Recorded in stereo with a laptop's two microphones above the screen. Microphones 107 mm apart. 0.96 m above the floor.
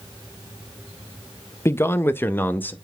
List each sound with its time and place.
1.6 s a man speaking: 25° left (ahead or behind), 0.7 m; by 2.7 s 15° left (ahead or behind), 1.4 m